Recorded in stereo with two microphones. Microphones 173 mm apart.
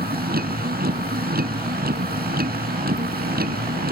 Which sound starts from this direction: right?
A vehicle, at 0.0 s.